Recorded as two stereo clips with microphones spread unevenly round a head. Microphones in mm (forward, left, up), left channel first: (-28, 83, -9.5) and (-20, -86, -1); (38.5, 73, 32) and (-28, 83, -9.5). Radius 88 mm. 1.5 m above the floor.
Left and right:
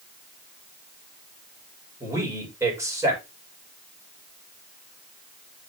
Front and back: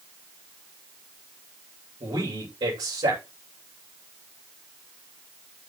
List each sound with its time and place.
2.0 s a man speaking: 160° right, 7.5 m